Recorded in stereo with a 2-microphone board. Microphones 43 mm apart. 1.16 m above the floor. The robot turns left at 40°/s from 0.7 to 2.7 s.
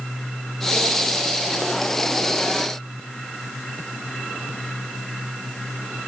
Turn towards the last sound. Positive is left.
No sound to turn to.